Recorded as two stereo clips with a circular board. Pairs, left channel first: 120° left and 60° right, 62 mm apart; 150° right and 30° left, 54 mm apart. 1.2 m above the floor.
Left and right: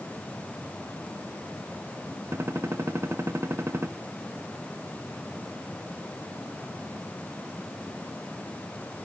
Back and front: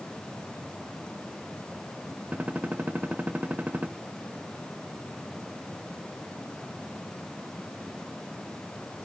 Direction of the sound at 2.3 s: 25° right.